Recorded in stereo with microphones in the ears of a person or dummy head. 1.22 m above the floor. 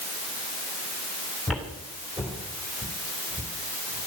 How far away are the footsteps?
About 2.5 m.